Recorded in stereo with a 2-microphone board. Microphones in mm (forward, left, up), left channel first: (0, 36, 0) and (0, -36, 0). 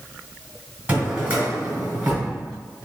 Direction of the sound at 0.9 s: 20° right (ahead or behind).